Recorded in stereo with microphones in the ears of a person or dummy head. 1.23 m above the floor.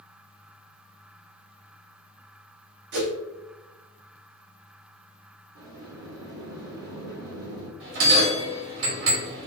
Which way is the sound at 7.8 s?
70° right (ahead or behind).